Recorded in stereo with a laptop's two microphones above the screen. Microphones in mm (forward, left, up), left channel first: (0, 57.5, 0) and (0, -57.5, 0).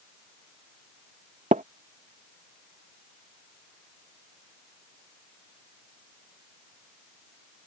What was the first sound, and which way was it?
Tapping, 75° right (ahead or behind).